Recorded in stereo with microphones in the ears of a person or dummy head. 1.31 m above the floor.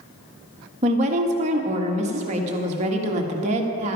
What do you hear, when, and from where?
0.8 s a woman speaking: 40° right (ahead or behind), 1.6 m